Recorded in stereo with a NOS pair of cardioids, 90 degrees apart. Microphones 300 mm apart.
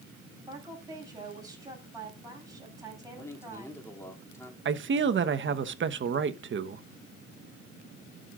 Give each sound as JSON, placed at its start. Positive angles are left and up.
{"t": 0.4, "sound": "a woman speaking", "azimuth_deg": -10, "distance_m": 7.5}
{"t": 3.2, "sound": "a man speaking", "azimuth_deg": 10, "distance_m": 3.0}
{"t": 4.7, "sound": "a man speaking", "azimuth_deg": -40, "distance_m": 1.2}